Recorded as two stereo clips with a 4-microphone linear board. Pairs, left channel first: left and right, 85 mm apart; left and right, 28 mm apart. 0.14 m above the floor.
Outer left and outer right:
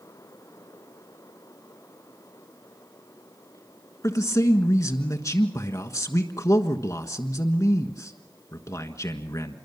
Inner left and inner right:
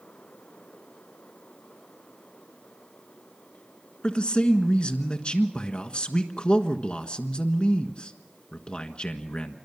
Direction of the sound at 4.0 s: 40° left (ahead or behind).